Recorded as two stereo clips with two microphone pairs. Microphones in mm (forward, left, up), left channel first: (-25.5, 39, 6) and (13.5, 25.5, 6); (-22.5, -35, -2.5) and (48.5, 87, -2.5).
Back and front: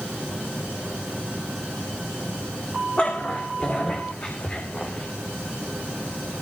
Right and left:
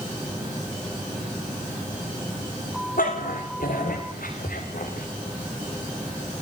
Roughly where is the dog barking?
Behind right.